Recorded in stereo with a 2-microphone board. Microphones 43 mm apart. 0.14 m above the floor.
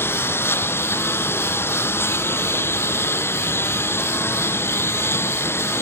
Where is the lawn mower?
65° left (ahead or behind); by 5.8 s 70° left (ahead or behind).